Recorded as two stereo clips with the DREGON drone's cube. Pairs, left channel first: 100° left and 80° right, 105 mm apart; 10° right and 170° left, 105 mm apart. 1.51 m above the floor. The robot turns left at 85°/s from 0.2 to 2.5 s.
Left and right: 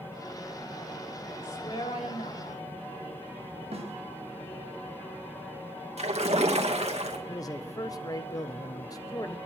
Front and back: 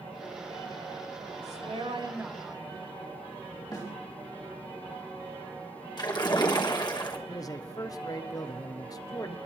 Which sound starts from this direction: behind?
A woman speaking, at 1.4 s.